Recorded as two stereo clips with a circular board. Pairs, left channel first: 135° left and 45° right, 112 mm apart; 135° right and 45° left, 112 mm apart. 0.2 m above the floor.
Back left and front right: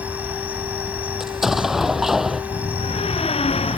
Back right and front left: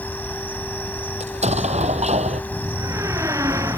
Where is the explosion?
40° left.